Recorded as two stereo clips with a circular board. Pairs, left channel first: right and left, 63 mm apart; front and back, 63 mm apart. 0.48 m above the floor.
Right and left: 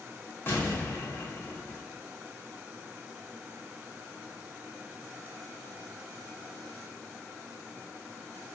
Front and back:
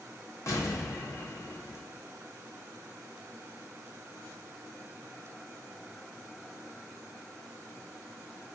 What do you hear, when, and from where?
0.5 s an explosion: 35° right, 1.2 m